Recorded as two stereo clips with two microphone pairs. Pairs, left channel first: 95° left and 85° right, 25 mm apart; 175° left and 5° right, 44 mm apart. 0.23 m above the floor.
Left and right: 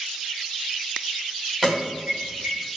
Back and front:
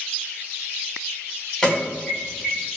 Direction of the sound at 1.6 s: 150° left.